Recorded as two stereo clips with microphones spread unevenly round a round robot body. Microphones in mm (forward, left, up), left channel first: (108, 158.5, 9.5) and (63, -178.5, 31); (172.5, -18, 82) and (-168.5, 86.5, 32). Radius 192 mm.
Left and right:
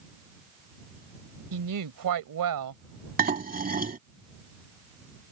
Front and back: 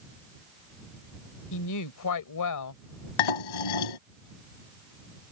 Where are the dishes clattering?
30° right.